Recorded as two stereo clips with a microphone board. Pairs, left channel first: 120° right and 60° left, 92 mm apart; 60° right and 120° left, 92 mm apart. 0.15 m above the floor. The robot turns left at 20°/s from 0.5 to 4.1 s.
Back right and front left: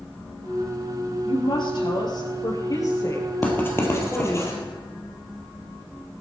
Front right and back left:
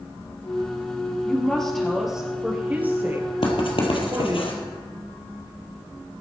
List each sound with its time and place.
1.2 s a woman speaking: 135° right, 3.5 m; by 4.4 s 165° left, 3.5 m
3.4 s writing: 50° right, 3 m; by 4.5 s 65° right, 3 m